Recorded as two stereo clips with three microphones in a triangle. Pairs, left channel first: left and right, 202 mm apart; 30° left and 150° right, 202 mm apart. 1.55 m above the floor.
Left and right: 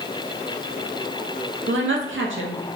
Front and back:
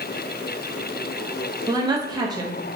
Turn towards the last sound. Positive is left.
turn(degrees=-80)